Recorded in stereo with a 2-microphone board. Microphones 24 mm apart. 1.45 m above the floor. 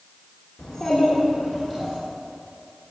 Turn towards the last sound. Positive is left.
turn(degrees=-10)  # may be behind; listen again after turning